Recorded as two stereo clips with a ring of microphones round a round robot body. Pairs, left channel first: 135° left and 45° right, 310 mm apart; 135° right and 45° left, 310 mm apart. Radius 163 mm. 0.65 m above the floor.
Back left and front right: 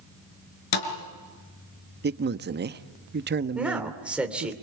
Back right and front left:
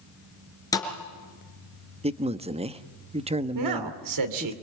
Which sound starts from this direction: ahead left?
A man speaking, at 3.5 s.